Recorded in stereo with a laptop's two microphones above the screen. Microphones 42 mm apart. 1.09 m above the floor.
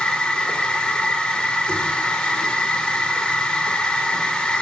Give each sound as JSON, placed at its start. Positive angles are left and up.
{"t": 0.0, "sound": "a machine running", "side_deg": 15, "distance_m": 0.7}